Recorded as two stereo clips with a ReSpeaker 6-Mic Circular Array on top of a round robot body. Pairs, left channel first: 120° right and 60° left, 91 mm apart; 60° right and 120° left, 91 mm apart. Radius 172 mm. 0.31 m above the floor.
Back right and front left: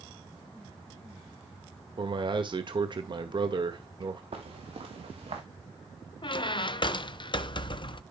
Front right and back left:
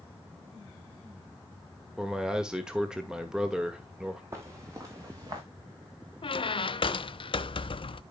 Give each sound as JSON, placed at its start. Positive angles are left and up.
{"t": 2.0, "sound": "a man speaking", "azimuth_deg": 40, "distance_m": 1.7}
{"t": 4.3, "sound": "footsteps", "azimuth_deg": 60, "distance_m": 3.5}
{"t": 6.2, "sound": "a squeak", "azimuth_deg": -85, "distance_m": 0.7}